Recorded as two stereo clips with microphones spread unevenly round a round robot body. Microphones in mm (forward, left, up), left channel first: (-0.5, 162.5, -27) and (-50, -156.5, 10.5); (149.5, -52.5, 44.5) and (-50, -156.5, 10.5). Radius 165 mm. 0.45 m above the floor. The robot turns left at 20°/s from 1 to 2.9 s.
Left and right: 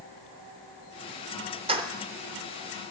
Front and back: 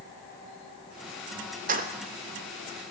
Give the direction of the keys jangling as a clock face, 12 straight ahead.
6 o'clock.